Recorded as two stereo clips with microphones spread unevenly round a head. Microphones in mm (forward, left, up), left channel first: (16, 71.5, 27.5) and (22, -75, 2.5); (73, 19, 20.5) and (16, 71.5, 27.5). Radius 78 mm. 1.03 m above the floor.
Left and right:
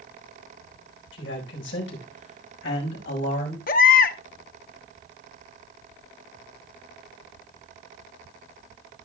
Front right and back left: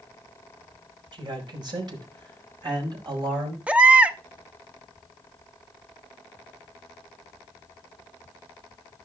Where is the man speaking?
110° left, 4 m; by 3.6 s 115° left, 5.5 m.